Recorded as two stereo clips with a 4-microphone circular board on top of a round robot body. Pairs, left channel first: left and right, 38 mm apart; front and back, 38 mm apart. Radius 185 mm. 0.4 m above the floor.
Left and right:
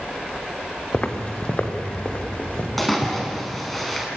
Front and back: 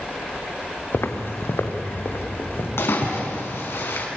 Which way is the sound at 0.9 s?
30° left.